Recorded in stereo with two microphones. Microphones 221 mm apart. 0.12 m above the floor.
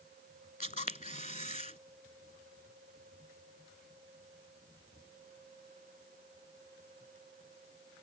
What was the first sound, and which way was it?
A camera shutter, 35° left (ahead or behind).